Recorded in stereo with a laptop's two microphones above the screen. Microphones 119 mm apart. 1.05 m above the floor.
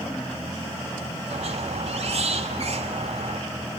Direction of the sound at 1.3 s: 60° right (ahead or behind).